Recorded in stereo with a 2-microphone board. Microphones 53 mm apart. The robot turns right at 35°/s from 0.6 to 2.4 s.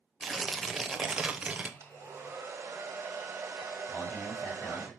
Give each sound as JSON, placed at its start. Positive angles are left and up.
{"t": 0.2, "sound": "tearing paper", "azimuth_deg": 180, "distance_m": 0.6}
{"t": 1.8, "sound": "a hair dryer", "side_deg": -50, "distance_m": 1.5}
{"t": 3.9, "sound": "a man speaking", "side_deg": 35, "distance_m": 1.8}